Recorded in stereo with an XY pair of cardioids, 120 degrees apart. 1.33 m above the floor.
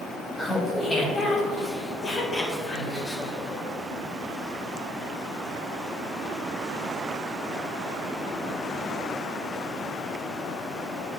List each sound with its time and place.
0.4 s laughter: 15° left, 1.9 m; by 3.6 s 45° left, 3 m